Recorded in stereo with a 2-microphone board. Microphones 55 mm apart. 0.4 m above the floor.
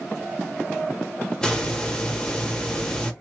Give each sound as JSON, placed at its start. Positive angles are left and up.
{"t": 1.4, "sound": "a hiss", "side_deg": 15, "distance_m": 0.9}